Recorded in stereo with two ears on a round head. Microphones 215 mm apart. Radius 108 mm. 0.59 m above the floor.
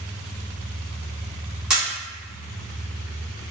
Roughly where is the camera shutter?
Centre.